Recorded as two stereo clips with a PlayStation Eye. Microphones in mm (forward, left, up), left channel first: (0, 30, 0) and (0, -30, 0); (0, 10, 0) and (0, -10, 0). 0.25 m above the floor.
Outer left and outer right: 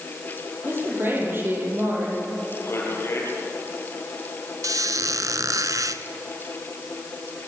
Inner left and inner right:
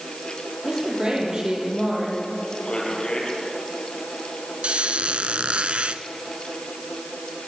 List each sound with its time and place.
0.6 s a woman speaking: 40° right (ahead or behind), 7 m
2.6 s a man speaking: 45° left (ahead or behind), 5.5 m
4.6 s a squeak: 70° right (ahead or behind), 0.9 m